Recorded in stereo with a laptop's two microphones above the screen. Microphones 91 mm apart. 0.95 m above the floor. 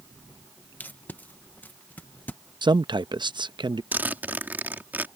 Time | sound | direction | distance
0.8 | tape being pulled | 20° left (ahead or behind) | ?
2.6 | a man speaking | 55° right (ahead or behind) | ?
3.9 | a zipper | 20° right (ahead or behind) | ?